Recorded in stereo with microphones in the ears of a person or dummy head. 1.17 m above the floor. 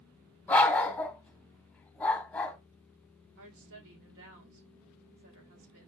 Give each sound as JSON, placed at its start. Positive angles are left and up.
{"t": 0.5, "sound": "a dog barking", "side_deg": 10, "distance_m": 1.1}
{"t": 3.4, "sound": "a woman speaking", "side_deg": -70, "distance_m": 1.6}